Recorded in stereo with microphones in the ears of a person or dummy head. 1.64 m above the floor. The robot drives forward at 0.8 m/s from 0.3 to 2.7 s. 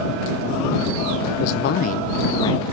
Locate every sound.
1.4 s a man speaking: 50° left (ahead or behind), 0.5 m; by 2.6 s 20° left (ahead or behind), 1.1 m